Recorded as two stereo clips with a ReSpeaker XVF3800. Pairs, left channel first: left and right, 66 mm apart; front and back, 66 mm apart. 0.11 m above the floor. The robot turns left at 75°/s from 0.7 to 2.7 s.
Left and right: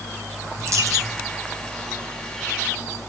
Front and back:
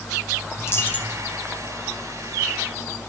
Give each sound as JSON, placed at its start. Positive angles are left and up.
{"t": 0.6, "sound": "a dropped coin", "azimuth_deg": -50, "distance_m": 1.8}